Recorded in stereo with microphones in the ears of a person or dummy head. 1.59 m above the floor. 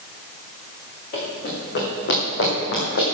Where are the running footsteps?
50° left (ahead or behind), 5 m; by 3.0 s 70° left (ahead or behind), 5.5 m.